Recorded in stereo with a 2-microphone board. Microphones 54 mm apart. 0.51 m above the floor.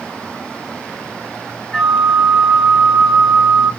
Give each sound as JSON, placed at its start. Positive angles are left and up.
{"t": 1.7, "sound": "a flute", "side_deg": 10, "distance_m": 1.7}